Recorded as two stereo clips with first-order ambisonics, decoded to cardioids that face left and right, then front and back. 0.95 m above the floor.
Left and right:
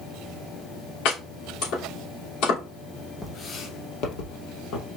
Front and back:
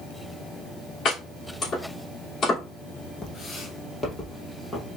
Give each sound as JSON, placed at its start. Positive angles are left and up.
{"t": 1.1, "sound": "chopping", "azimuth_deg": 65, "distance_m": 3.0}
{"t": 3.2, "sound": "footsteps", "azimuth_deg": 25, "distance_m": 0.9}